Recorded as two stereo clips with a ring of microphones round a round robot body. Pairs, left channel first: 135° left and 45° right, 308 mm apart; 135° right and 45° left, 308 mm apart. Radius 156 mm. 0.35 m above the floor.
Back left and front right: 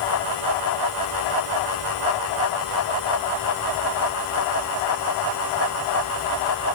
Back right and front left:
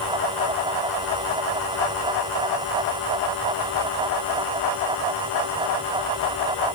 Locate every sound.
Only background noise.